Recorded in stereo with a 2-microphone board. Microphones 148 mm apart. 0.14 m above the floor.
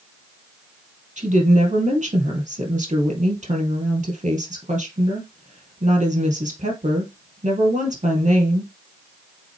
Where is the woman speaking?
55° right (ahead or behind), 3 m.